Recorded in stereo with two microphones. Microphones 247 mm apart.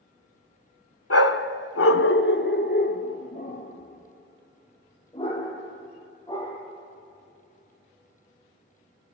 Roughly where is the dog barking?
Left.